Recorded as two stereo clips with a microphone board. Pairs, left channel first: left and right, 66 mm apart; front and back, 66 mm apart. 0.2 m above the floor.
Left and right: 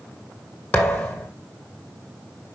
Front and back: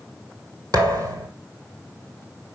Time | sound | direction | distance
0.7 | a thud | 155° left | 1.7 m